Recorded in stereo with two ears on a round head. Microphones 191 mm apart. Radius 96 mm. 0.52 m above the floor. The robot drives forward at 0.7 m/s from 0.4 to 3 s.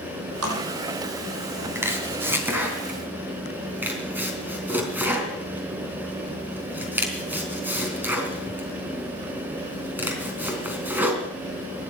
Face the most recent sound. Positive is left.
turn(degrees=-10)  # may be behind; listen again after turning